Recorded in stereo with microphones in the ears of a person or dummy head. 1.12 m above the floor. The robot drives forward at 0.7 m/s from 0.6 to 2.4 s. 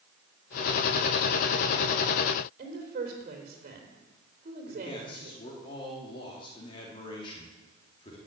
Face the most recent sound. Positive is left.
turn(degrees=30)  # may be behind; listen again after turning